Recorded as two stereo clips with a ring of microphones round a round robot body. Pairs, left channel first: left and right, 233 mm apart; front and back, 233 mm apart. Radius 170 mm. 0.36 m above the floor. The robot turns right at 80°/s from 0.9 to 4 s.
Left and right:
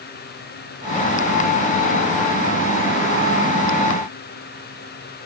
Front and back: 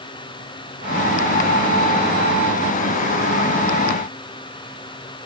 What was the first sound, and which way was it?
Only background noise.